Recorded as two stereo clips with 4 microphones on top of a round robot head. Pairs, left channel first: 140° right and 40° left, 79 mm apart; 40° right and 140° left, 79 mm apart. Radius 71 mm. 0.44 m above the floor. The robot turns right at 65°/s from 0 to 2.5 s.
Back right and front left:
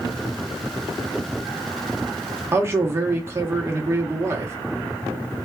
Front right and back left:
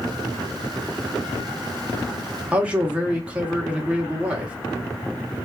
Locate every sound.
2.5 s a man speaking: 75° left, 0.9 m